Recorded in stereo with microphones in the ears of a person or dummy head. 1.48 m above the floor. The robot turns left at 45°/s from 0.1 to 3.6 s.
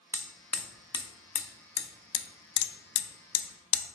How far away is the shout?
I don't hear a shout.